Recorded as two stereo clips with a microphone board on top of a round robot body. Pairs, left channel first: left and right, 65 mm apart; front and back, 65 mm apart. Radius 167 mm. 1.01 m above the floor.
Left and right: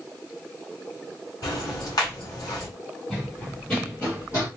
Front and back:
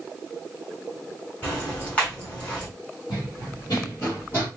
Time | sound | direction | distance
1.4 | ticking | 70° left | 1.7 m
3.1 | running footsteps | 15° left | 1.7 m